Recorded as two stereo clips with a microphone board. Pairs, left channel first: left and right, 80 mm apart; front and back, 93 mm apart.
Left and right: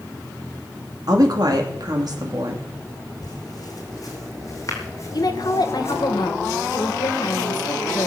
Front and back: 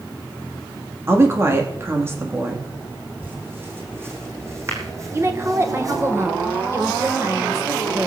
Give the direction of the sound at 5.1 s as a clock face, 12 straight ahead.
8 o'clock.